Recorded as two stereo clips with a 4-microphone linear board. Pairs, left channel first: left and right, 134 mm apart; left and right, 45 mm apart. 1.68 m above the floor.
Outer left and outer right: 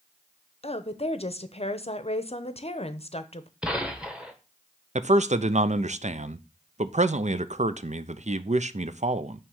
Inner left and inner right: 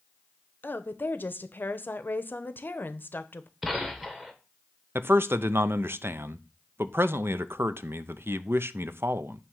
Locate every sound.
0.6 s a woman speaking: 50° left (ahead or behind), 0.8 m
3.6 s a gunshot: 5° right (ahead or behind), 1.3 m
5.0 s a man speaking: 60° right (ahead or behind), 0.6 m